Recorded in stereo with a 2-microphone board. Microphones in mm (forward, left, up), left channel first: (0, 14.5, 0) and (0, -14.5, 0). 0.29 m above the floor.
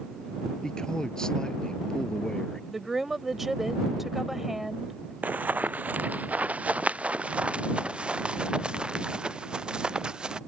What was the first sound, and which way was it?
A man speaking, 25° left (ahead or behind).